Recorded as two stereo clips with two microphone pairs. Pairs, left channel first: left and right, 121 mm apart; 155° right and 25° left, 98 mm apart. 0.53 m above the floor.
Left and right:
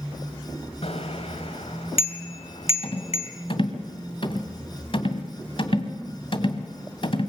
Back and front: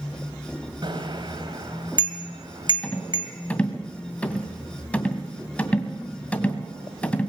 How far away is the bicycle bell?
About 2 m.